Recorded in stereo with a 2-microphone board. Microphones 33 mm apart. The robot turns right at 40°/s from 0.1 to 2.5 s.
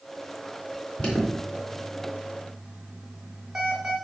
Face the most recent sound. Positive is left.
turn(degrees=-20)  # may be behind; listen again after turning